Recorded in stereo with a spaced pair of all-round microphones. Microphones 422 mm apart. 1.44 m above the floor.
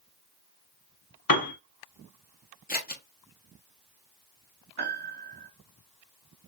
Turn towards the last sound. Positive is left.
turn(degrees=-65)  # may be behind; listen again after turning